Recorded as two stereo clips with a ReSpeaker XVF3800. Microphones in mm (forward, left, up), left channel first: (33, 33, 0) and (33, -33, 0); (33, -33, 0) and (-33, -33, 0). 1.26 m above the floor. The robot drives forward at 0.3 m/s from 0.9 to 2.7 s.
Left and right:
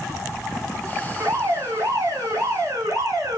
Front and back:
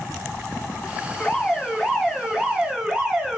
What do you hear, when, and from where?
1.2 s an alarm: 75° right, 1.0 m; by 3.4 s 105° right, 1.0 m